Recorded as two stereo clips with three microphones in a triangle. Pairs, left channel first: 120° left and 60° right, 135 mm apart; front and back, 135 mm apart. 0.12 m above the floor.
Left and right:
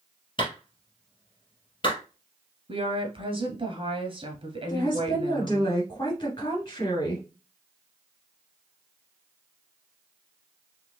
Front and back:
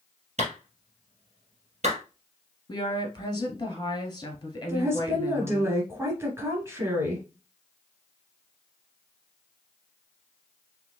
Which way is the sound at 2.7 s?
45° right.